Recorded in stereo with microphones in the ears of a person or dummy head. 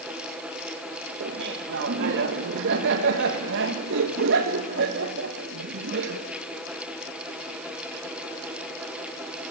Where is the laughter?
70° right (ahead or behind), 1.3 m.